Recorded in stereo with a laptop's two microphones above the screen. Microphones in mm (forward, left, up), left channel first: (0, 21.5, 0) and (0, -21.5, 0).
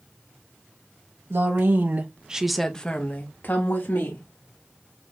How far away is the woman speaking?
About 1.2 m.